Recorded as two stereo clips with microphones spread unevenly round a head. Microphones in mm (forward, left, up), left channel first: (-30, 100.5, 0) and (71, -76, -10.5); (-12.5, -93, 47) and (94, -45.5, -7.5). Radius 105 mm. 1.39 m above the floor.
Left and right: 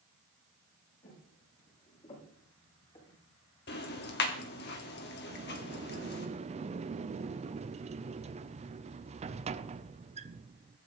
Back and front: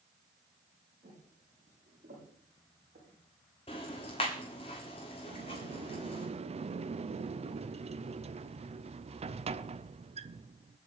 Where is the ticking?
160° left, 1.7 m.